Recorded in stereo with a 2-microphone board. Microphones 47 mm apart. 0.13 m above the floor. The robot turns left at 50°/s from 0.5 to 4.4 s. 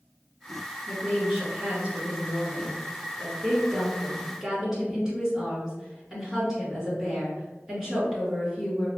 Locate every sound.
0.9 s a woman speaking: 10° left, 1.9 m; by 8.9 s 165° right, 1.9 m